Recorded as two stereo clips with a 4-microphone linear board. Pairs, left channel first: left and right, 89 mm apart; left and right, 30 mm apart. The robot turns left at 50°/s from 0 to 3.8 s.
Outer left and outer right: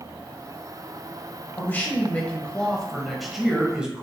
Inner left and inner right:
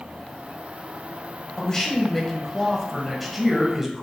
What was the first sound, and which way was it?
A man speaking, 20° left (ahead or behind).